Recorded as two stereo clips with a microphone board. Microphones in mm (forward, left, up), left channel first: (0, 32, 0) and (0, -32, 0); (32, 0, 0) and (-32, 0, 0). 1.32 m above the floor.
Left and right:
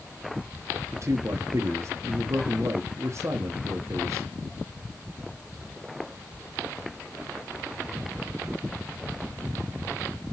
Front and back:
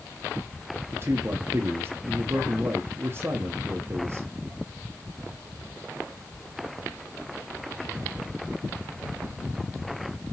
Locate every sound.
0.9 s a man speaking: 130° right, 0.8 m